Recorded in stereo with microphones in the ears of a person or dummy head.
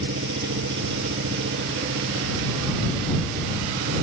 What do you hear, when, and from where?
0.0 s an engine running: 75° right (ahead or behind)